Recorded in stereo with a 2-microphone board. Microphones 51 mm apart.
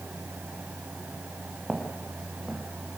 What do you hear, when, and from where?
1.7 s footsteps: centre (ahead or behind), 5.5 m